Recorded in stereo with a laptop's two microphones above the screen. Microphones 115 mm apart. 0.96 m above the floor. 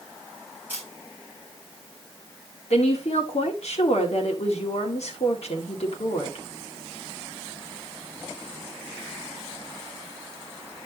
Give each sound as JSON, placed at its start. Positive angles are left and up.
{"t": 0.7, "sound": "a camera shutter", "side_deg": -15, "distance_m": 5.0}
{"t": 2.7, "sound": "a woman speaking", "side_deg": 65, "distance_m": 2.0}